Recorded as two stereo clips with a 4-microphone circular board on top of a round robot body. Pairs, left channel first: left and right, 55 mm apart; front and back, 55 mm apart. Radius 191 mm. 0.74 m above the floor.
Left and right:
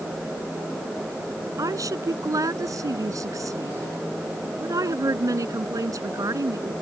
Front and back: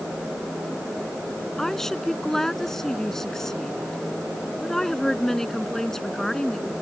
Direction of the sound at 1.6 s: 80° right.